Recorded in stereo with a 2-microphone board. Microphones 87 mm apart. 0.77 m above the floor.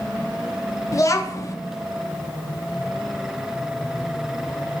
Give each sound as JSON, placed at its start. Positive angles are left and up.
{"t": 0.9, "sound": "a child speaking", "side_deg": 40, "distance_m": 0.5}